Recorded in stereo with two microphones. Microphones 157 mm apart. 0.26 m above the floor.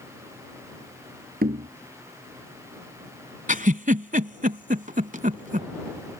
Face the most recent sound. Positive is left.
turn(degrees=-60)  # may be behind; listen again after turning